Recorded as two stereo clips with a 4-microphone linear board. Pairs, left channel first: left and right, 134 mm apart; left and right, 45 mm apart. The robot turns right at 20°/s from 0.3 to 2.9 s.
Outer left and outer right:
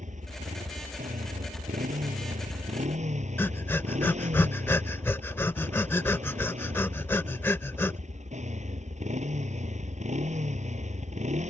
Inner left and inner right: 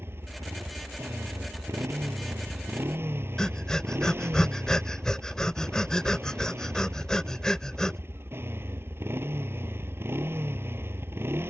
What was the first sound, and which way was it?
A motorcycle, 115° right.